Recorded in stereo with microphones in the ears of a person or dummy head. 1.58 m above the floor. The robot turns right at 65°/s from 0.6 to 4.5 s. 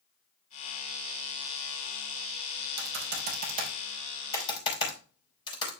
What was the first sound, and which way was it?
Typing on a keyboard, 80° right.